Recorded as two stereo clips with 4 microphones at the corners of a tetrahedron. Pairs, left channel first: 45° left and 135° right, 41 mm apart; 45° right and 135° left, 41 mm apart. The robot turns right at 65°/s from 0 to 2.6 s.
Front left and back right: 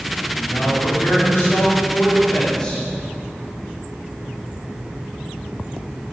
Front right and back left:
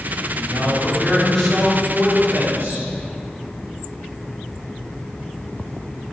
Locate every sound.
0.3 s a man speaking: 30° right, 3 m; by 2.9 s 115° left, 3 m